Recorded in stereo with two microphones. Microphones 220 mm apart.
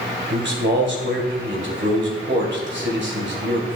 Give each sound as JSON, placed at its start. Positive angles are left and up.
{"t": 0.3, "sound": "a man speaking", "side_deg": -55, "distance_m": 1.9}